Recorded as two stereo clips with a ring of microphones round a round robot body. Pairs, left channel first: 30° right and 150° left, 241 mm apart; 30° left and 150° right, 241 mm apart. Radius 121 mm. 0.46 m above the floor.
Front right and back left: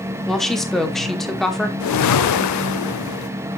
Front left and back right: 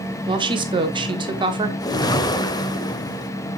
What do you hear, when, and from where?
0.3 s a woman speaking: 115° right, 1.3 m
1.8 s a whoosh: 45° right, 0.8 m